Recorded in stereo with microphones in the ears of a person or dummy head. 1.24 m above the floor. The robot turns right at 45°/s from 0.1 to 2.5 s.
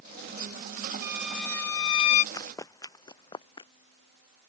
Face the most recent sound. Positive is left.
turn(degrees=30)  # may be behind; listen again after turning